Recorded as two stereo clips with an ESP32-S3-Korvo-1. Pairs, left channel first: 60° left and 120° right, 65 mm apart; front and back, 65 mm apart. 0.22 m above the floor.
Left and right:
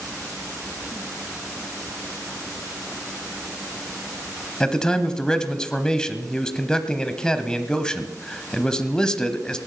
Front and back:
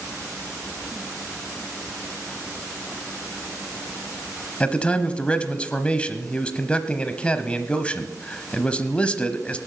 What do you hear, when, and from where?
4.6 s a man speaking: 10° left, 0.9 m